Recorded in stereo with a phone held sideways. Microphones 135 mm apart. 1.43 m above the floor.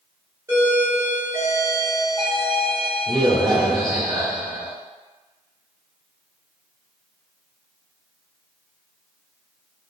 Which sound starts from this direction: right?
A doorbell, at 0.5 s.